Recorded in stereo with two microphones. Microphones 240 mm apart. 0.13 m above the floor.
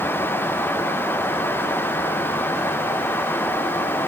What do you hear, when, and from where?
Only background noise.